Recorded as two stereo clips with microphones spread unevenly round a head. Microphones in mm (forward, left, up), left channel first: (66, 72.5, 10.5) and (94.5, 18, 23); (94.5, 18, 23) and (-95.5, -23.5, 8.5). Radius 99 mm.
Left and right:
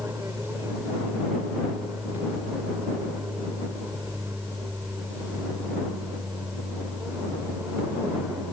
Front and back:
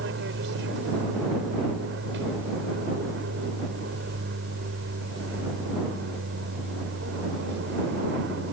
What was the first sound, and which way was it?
An aircraft, 135° right.